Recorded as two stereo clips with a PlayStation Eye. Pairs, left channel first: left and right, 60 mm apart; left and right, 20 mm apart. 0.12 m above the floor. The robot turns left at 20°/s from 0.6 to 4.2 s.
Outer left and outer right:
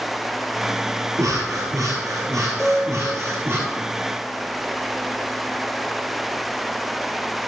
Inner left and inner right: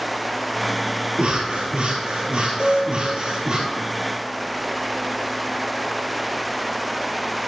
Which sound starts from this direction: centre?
A piano, at 2.6 s.